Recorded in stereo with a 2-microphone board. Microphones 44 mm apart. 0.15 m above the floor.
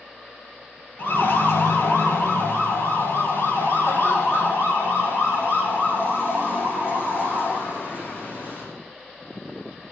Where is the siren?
55° left (ahead or behind), 3.5 m; by 8.6 s 60° left (ahead or behind), 10 m.